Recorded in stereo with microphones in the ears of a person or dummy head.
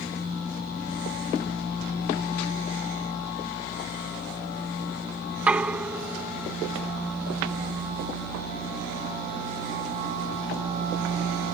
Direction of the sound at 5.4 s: 10° right (ahead or behind).